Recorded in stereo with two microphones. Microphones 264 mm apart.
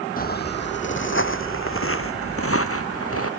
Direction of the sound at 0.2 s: 35° left (ahead or behind).